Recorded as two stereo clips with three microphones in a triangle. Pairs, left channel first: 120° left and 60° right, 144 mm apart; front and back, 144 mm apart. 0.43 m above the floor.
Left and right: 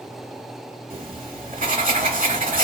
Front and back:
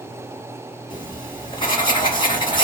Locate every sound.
0.9 s writing: 55° right, 1.6 m